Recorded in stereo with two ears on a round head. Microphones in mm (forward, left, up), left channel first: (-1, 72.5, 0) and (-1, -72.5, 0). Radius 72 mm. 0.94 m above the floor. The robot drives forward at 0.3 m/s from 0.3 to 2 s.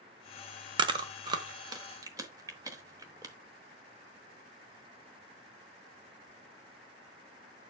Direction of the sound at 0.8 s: 30° right (ahead or behind).